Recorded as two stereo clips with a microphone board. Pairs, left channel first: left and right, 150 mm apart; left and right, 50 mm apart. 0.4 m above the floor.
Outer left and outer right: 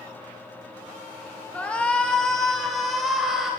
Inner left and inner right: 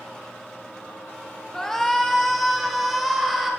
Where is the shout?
10° left (ahead or behind), 1.1 m; by 3.5 s 5° right (ahead or behind), 1.8 m.